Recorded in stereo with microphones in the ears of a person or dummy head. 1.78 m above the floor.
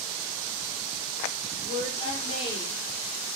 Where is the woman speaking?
30° left (ahead or behind), 7 m; by 2.8 s 35° left (ahead or behind), 6.5 m.